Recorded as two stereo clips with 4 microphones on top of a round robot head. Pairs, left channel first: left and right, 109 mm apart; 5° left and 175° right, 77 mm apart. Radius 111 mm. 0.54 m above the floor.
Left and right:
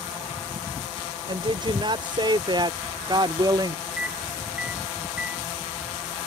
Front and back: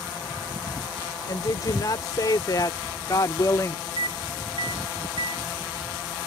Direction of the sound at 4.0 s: 170° right.